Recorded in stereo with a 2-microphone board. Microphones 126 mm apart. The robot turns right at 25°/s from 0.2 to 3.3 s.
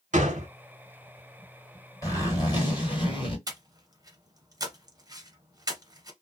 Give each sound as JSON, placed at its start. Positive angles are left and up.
{"t": 0.1, "sound": "a gunshot", "side_deg": -80, "distance_m": 0.7}
{"t": 2.0, "sound": "a zipper", "azimuth_deg": 40, "distance_m": 1.8}
{"t": 3.5, "sound": "breathing", "side_deg": -30, "distance_m": 0.8}